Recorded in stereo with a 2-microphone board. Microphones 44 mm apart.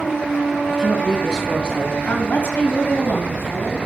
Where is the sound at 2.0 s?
45° left (ahead or behind), 3 m.